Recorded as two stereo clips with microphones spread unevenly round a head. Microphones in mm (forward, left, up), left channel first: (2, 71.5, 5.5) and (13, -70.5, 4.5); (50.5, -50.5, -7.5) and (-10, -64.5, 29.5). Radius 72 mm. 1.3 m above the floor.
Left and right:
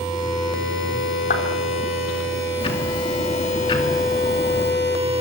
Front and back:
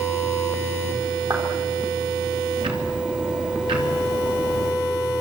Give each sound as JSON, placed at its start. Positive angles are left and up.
{"t": 1.3, "sound": "a clap", "azimuth_deg": 130, "distance_m": 3.5}
{"t": 2.6, "sound": "ticking", "azimuth_deg": 150, "distance_m": 3.0}